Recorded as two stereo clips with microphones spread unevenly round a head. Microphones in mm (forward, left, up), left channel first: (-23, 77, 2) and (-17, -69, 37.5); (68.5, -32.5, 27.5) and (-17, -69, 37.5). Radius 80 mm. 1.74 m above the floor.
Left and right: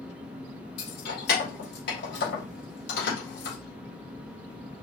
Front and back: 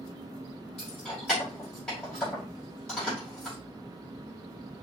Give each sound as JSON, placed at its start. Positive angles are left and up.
{"t": 0.8, "sound": "keys jangling", "azimuth_deg": 110, "distance_m": 2.5}